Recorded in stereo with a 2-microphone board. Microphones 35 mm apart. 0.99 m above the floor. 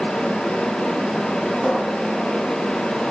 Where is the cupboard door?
15° left (ahead or behind), 3 m.